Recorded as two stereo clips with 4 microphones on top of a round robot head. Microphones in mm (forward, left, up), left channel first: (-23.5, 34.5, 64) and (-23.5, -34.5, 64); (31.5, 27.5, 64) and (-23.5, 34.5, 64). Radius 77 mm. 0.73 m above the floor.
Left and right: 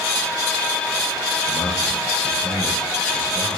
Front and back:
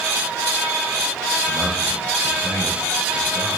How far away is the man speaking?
About 9.5 m.